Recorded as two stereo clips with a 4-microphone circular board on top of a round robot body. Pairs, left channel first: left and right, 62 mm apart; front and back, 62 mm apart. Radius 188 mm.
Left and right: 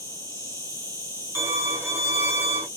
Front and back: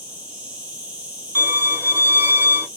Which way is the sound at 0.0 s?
110° left.